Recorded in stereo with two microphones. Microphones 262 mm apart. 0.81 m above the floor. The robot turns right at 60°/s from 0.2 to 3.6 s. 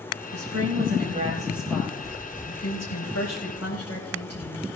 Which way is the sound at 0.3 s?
80° right.